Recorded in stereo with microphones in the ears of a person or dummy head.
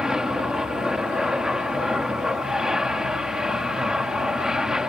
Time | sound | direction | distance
0.0 | an aircraft | centre (ahead or behind) | ?